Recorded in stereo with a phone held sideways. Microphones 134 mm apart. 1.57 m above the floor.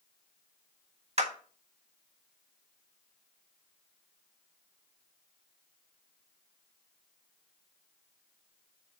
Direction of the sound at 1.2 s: 50° right (ahead or behind).